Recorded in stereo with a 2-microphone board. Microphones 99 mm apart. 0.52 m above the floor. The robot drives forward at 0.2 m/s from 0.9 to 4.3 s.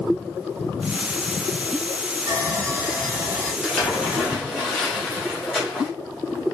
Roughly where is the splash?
Centre.